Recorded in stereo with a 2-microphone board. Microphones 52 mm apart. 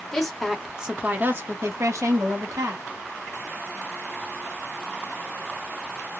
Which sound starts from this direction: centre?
A woman speaking, at 0.1 s.